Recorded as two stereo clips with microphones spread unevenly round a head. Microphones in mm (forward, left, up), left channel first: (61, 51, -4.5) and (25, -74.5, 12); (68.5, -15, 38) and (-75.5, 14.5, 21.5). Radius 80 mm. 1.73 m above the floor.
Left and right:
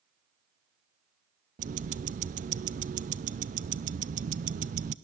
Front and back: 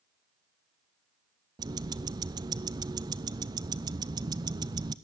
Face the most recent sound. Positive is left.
turn(degrees=-125)